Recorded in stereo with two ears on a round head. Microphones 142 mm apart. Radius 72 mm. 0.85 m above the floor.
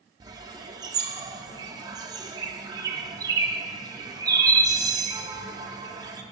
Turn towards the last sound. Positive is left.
turn(degrees=-25)  # may be behind; listen again after turning